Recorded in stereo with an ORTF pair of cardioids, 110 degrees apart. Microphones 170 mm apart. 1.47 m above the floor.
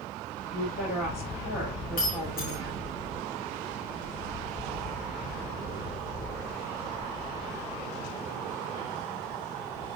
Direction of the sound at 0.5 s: 45° left.